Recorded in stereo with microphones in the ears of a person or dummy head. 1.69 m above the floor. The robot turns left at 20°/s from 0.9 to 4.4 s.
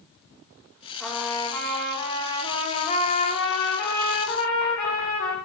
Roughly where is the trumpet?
Behind.